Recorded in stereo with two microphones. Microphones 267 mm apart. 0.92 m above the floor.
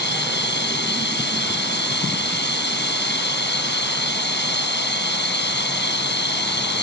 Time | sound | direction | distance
0.0 | running water | 45° left (ahead or behind) | ?